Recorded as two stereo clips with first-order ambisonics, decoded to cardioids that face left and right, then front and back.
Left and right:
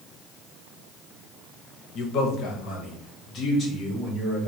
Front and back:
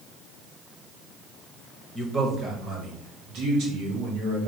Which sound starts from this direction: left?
A man speaking, at 1.9 s.